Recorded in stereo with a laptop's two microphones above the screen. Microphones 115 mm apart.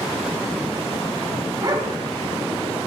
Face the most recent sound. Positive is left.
turn(degrees=-35)  # may be behind; listen again after turning